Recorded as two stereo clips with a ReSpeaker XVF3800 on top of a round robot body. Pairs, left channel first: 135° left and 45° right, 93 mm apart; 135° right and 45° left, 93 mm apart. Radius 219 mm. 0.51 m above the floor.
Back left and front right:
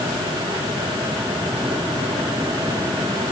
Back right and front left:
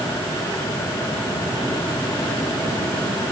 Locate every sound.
Only background noise.